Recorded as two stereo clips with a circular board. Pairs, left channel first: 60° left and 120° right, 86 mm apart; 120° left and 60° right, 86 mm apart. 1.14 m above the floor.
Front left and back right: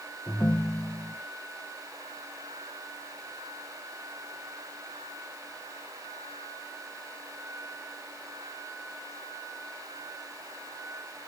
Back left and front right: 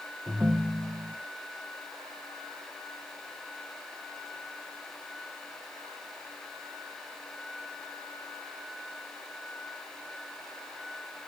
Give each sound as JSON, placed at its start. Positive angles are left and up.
{"t": 0.3, "sound": "a ringtone", "azimuth_deg": 5, "distance_m": 0.8}